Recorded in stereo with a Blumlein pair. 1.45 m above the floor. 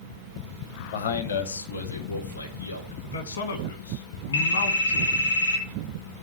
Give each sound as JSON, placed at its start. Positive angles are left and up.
{"t": 0.9, "sound": "a man speaking", "azimuth_deg": 55, "distance_m": 0.9}
{"t": 3.0, "sound": "a man speaking", "azimuth_deg": 65, "distance_m": 1.7}
{"t": 4.3, "sound": "a phone ringing", "azimuth_deg": 70, "distance_m": 3.0}